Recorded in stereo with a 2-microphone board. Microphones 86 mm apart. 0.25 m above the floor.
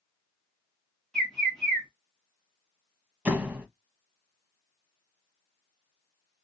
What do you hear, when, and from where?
1.1 s a bird: 5° left (ahead or behind), 1.8 m
3.2 s a door slam: 15° right (ahead or behind), 1.0 m